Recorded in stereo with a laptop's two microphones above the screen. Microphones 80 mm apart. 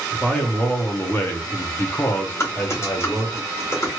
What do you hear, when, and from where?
0.1 s a man speaking: 15° left (ahead or behind), 1.1 m; by 3.4 s 20° left (ahead or behind), 1.1 m
2.4 s typing on a keyboard: 35° left (ahead or behind), 1.3 m